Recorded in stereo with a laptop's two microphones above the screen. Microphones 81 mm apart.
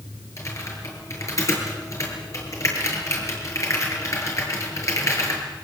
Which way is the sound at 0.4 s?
40° left (ahead or behind).